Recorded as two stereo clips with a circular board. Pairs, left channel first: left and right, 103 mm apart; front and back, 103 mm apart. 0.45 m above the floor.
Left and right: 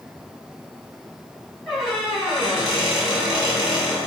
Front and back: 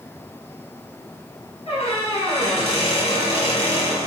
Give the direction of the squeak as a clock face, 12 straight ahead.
12 o'clock.